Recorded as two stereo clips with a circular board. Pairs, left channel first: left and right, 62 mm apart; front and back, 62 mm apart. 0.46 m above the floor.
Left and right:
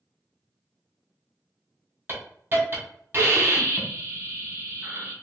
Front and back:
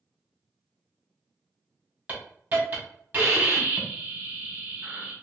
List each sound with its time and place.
2.1 s a hiss: 130° right, 2 m